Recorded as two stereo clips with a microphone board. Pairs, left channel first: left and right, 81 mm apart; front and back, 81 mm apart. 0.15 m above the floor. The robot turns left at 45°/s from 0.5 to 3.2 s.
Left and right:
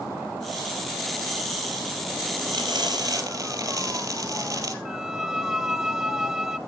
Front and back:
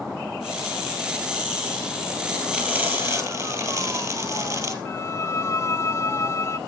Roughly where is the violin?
Ahead.